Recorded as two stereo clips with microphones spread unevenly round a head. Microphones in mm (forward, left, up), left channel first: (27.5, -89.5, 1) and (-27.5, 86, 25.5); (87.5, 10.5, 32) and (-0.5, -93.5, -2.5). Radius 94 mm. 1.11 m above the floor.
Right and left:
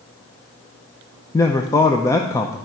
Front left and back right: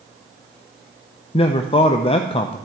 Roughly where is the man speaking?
Ahead.